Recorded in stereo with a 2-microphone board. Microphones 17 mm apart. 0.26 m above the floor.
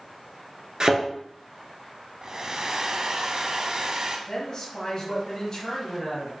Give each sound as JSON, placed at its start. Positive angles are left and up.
{"t": 0.8, "sound": "a thud", "side_deg": -45, "distance_m": 1.7}
{"t": 2.2, "sound": "a hair dryer", "side_deg": -45, "distance_m": 0.9}
{"t": 4.3, "sound": "a woman speaking", "side_deg": 35, "distance_m": 1.7}